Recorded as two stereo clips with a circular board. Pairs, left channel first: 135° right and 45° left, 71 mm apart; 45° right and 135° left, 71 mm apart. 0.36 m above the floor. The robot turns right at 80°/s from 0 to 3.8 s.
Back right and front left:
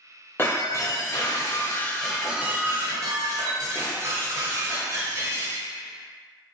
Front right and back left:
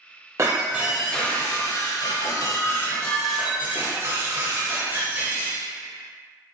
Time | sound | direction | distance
0.4 | breaking glass | 175° left | 0.6 m